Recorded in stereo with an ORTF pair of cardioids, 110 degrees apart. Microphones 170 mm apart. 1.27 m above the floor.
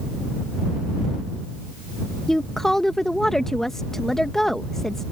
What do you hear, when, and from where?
2.3 s a woman speaking: straight ahead